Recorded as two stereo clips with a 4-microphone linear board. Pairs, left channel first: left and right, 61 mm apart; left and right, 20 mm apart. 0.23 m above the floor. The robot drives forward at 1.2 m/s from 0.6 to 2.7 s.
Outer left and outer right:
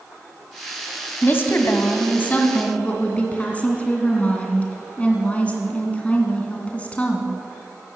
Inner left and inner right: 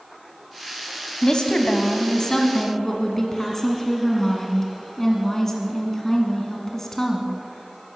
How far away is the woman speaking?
About 1.3 m.